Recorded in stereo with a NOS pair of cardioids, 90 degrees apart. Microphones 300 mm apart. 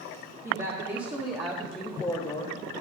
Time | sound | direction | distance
0.4 | a woman speaking | 25° right | 1.9 m